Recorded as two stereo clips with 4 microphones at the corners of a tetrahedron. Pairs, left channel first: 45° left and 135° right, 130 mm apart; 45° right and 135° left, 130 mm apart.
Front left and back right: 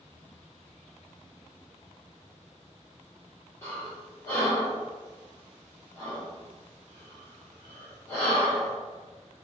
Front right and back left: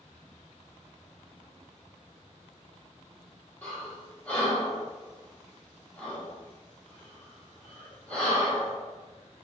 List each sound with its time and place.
3.6 s breathing: 15° left, 1.3 m